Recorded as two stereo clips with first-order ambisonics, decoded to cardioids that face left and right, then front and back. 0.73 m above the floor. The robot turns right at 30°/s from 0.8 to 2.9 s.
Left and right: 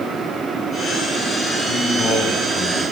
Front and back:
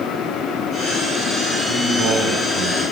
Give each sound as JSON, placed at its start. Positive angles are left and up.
{"t": 1.7, "sound": "a man speaking", "azimuth_deg": 130, "distance_m": 5.0}